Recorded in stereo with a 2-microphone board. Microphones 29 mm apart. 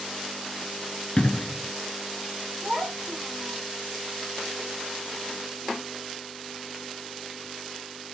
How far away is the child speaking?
About 3 m.